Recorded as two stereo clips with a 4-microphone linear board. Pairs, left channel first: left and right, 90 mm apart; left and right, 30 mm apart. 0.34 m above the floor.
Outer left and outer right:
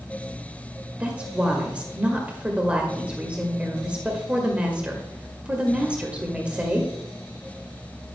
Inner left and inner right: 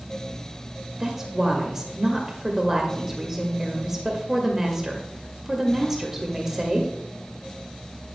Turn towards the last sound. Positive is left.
turn(degrees=-15)  # may be behind; listen again after turning